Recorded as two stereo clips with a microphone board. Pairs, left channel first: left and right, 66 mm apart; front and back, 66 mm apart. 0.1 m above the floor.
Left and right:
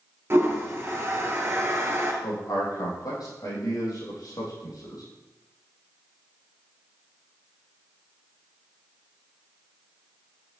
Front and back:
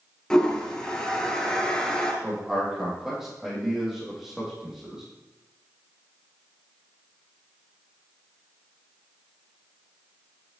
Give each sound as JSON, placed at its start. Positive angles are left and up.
{"t": 0.3, "sound": "a toilet flushing", "azimuth_deg": -75, "distance_m": 1.3}
{"t": 2.2, "sound": "a man speaking", "azimuth_deg": 95, "distance_m": 4.0}